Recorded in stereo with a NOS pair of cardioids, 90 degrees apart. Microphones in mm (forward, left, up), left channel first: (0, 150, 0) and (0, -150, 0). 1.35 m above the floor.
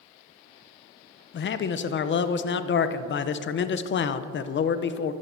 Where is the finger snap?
I don't hear a finger snap.